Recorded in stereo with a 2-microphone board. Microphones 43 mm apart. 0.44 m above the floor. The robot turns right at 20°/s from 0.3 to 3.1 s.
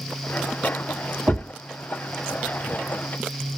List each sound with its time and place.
1.3 s a thud: 80° right, 2 m; by 1.5 s 85° right, 2 m